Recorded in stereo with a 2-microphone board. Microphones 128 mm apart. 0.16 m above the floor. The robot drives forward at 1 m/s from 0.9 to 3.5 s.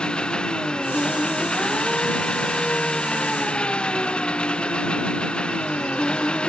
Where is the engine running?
5° left (ahead or behind); by 6.5 s 10° left (ahead or behind).